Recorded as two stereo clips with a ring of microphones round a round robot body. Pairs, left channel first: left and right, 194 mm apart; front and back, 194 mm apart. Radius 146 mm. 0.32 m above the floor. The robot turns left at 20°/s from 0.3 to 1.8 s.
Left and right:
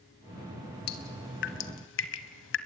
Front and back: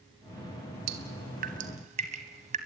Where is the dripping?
135° left, 0.9 m; by 2.6 s 120° left, 0.9 m.